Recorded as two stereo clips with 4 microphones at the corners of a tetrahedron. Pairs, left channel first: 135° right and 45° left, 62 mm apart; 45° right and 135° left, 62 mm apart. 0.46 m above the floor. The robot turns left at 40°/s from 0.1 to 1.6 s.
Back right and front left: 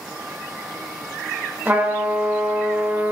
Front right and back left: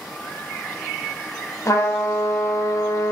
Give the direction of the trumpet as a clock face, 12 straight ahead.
12 o'clock.